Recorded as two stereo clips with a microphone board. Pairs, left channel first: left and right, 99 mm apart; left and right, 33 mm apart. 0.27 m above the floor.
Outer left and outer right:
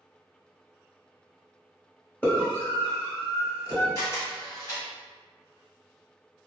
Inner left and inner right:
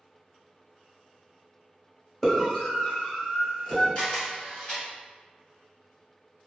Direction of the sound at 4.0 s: 30° left (ahead or behind).